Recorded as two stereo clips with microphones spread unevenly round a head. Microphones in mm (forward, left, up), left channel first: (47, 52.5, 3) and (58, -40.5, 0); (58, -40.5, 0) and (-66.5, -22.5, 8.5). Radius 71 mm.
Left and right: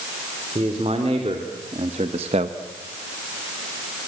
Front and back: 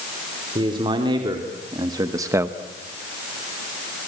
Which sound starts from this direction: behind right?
A man speaking, at 0.6 s.